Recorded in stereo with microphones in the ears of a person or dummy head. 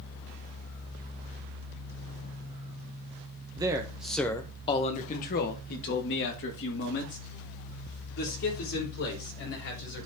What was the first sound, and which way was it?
A man speaking, 25° right (ahead or behind).